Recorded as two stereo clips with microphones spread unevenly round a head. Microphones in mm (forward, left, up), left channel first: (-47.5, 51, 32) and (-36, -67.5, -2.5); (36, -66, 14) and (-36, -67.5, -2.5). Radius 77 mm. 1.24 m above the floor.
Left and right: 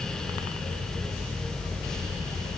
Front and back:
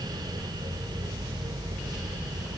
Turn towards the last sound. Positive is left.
No sound to turn to.